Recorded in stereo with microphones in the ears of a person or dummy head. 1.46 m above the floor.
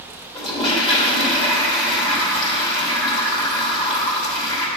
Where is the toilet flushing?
30° left (ahead or behind), 2.5 m.